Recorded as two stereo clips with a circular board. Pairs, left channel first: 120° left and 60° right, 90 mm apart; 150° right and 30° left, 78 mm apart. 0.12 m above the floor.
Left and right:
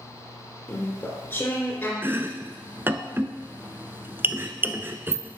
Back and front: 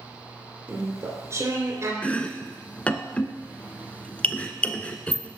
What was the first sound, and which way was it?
Chewing, 65° left.